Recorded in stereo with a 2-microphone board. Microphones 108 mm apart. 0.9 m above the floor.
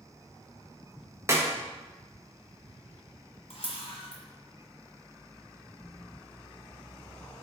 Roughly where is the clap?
Right.